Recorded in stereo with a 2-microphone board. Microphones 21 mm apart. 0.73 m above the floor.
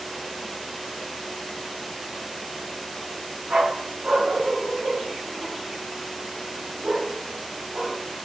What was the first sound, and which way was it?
A dog barking, 80° right.